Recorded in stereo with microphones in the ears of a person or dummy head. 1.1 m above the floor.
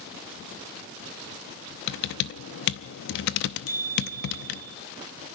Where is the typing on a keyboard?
55° left (ahead or behind), 0.7 m.